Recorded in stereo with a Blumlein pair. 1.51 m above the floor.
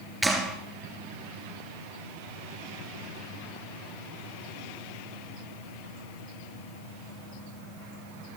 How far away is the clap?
About 3 m.